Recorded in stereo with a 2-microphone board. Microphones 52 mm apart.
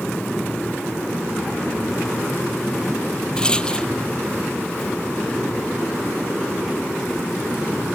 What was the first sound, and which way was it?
A rattle, 15° left (ahead or behind).